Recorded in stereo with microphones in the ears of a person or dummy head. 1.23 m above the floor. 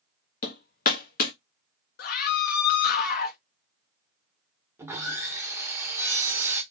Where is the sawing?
10° right (ahead or behind), 0.8 m.